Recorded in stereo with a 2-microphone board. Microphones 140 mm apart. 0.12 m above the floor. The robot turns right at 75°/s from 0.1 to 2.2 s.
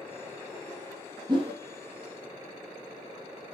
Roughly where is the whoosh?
Right.